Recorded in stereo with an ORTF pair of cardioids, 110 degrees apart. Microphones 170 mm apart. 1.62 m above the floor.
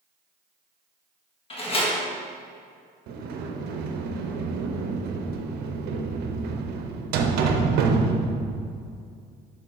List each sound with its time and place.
1.5 s a door slam: 35° left, 1.7 m
3.1 s a sliding door: 70° right, 0.9 m